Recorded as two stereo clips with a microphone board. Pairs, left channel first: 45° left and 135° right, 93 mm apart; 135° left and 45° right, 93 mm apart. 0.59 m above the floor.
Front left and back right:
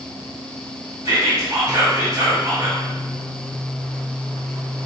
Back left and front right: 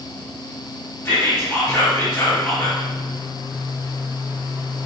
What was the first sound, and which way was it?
Whispering, 170° right.